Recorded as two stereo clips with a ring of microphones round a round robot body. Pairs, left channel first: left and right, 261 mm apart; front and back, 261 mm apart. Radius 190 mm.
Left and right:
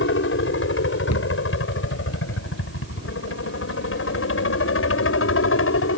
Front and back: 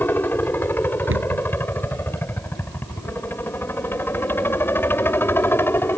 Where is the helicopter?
80° left.